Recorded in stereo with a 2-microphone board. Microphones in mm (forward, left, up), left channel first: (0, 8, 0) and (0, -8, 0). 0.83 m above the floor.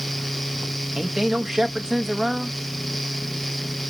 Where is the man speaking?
35° right (ahead or behind), 0.9 m.